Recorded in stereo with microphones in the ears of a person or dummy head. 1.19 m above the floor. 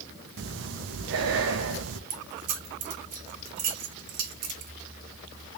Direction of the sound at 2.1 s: 50° right (ahead or behind).